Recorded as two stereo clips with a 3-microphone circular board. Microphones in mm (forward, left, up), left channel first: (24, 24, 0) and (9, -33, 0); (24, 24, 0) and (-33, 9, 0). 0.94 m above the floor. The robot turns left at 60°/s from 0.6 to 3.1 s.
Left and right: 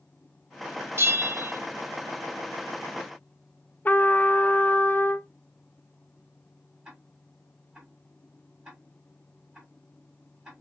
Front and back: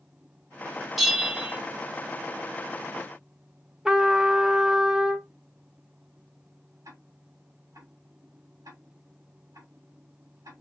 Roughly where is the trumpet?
Behind left.